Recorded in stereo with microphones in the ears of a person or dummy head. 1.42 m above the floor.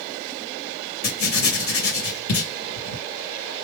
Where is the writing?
55° left (ahead or behind), 2 m.